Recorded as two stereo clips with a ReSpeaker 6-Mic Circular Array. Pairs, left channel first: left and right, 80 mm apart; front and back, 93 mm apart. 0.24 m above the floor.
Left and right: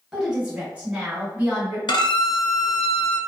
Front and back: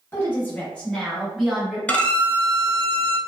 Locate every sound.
0.1 s a woman speaking: 20° right, 1.1 m; by 1.8 s 125° right, 1.1 m
1.9 s a violin: 75° left, 0.5 m